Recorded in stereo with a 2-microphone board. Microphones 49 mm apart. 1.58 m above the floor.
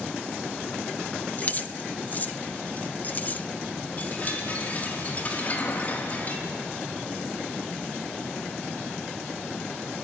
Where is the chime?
35° left (ahead or behind), 4.5 m.